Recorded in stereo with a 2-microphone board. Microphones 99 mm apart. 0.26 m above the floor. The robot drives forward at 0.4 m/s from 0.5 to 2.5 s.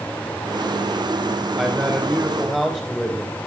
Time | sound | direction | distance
1.6 | a man speaking | centre (ahead or behind) | 6.5 m